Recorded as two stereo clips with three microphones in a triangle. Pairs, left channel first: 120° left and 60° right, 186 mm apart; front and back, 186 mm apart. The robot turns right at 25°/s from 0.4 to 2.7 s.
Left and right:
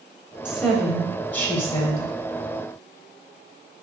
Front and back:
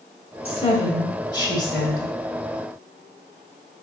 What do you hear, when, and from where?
0.5 s a woman speaking: 25° left, 1.3 m; by 2.1 s 65° left, 1.3 m